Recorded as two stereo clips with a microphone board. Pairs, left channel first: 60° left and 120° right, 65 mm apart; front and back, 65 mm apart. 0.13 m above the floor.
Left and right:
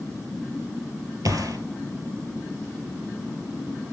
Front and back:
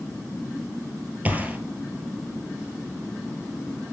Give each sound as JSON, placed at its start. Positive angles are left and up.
{"t": 1.2, "sound": "a gunshot", "azimuth_deg": -115, "distance_m": 1.1}